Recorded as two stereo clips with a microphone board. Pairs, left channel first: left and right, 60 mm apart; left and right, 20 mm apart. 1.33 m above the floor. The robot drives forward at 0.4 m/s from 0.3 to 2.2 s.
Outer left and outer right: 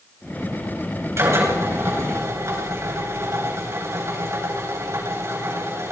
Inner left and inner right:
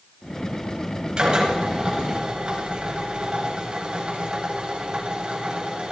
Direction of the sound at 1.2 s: 50° right (ahead or behind).